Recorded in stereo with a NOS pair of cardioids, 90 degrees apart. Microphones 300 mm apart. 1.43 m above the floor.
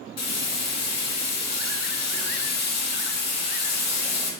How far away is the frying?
About 2.5 m.